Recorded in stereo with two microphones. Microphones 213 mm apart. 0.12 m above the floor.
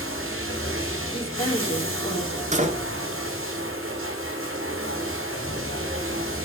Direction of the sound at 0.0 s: 90° right.